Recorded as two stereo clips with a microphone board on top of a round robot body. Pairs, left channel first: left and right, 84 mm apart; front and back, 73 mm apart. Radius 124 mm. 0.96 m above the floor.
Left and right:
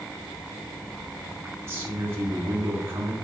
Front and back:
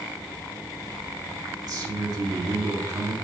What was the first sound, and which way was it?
A man speaking, 150° right.